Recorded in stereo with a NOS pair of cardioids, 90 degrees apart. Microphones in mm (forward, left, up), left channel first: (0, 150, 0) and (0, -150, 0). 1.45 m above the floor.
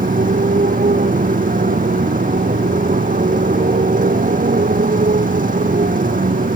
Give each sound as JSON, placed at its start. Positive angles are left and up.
{"t": 0.0, "sound": "a motorcycle", "azimuth_deg": -25}